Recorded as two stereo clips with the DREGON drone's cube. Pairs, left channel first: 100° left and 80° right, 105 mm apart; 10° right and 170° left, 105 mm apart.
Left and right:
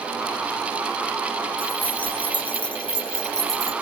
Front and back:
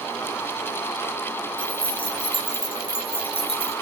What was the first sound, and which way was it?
Keys jangling, 30° left.